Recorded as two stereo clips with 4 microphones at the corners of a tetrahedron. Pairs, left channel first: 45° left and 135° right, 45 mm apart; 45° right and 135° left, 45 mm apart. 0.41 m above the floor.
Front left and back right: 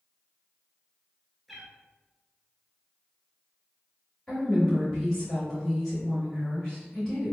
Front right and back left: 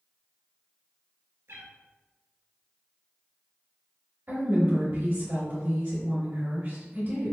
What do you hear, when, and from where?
1.5 s a cat meowing: 135° left, 0.6 m
4.3 s a woman speaking: 125° left, 1.9 m